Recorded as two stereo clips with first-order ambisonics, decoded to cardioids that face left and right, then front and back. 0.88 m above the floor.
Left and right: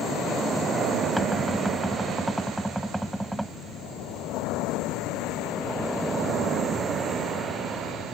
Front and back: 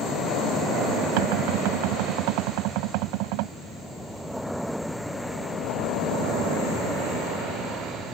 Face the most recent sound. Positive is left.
turn(degrees=180)